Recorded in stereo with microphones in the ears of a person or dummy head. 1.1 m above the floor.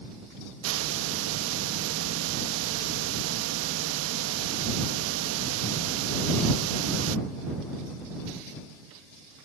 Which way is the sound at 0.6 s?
80° right.